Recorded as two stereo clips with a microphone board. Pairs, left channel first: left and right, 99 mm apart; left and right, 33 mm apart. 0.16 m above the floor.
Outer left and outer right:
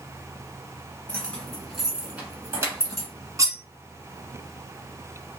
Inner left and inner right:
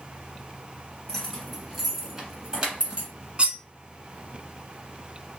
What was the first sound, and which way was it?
Keys jangling, 10° left (ahead or behind).